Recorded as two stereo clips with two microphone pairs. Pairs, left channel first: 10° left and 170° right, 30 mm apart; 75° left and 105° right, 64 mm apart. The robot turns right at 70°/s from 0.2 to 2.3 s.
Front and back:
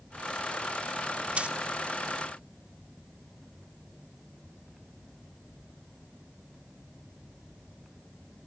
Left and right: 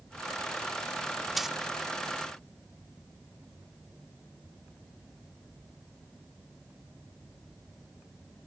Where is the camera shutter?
I don't hear a camera shutter.